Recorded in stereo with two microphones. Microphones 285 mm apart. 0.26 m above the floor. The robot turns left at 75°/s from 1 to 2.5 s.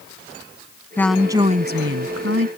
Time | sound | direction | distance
1.0 | a woman speaking | 10° left | ?